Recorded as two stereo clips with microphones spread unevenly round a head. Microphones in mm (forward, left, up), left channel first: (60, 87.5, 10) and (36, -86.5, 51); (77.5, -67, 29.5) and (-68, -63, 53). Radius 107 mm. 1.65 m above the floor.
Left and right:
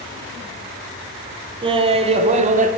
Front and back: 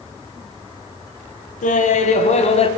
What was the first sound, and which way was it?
Laughter, 35° right.